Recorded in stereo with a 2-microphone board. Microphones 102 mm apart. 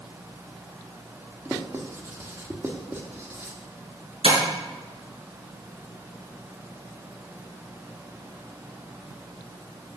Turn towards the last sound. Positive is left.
turn(degrees=-75)  # may be behind; listen again after turning